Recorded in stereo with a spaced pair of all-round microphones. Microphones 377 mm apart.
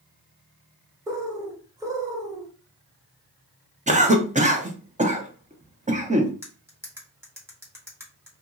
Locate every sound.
1.1 s a bird: 10° right (ahead or behind), 0.6 m
3.9 s a cough: 20° right (ahead or behind), 0.6 m
6.4 s cutlery clinking: 5° right (ahead or behind), 0.9 m